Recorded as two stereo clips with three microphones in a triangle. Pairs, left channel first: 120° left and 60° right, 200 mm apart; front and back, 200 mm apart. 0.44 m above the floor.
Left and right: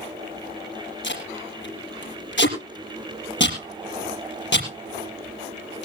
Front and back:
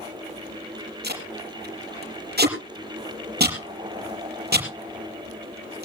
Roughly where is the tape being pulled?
Behind left.